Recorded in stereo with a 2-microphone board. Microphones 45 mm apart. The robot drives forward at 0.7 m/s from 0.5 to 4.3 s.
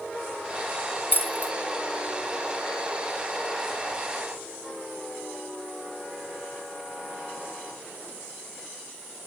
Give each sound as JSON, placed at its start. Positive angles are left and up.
{"t": 1.1, "sound": "keys jangling", "side_deg": 50, "distance_m": 1.0}